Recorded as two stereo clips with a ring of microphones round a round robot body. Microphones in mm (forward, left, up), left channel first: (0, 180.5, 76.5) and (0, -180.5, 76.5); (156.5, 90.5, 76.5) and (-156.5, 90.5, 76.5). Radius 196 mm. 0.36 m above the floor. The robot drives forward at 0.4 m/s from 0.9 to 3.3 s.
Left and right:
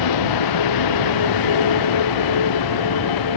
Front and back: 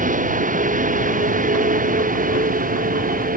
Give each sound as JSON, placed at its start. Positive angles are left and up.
{"t": 0.0, "sound": "a vehicle", "azimuth_deg": 115}